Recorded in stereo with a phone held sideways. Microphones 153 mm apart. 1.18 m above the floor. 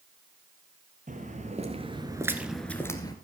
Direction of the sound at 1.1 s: 50° right (ahead or behind).